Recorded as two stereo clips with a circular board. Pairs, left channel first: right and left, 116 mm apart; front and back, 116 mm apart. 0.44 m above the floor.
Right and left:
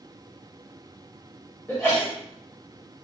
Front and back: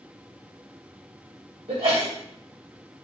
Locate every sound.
1.7 s a sneeze: 165° right, 1.7 m